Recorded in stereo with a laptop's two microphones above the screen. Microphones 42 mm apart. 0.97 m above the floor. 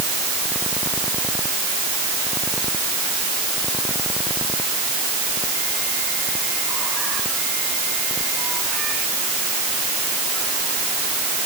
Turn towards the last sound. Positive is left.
No sound to turn to.